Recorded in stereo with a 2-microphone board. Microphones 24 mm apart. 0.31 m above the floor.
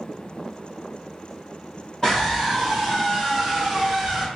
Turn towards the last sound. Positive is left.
turn(degrees=-10)  # may be behind; listen again after turning